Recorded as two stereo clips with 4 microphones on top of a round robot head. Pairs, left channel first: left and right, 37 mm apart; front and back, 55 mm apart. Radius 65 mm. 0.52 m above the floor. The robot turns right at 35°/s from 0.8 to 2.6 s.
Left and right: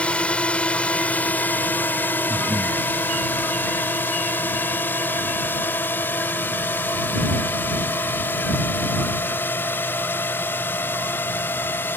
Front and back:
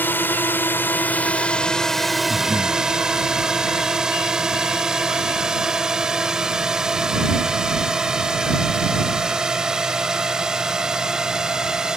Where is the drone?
40° left; by 12.0 s 105° left.